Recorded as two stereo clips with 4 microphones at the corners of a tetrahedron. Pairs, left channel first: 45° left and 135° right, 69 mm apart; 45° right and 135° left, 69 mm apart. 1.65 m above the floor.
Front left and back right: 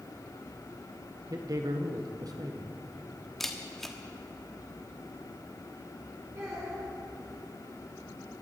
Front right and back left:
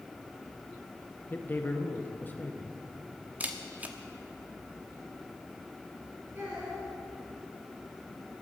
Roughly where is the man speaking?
Right.